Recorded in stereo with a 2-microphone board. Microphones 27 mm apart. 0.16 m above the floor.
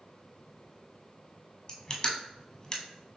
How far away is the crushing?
About 1.0 m.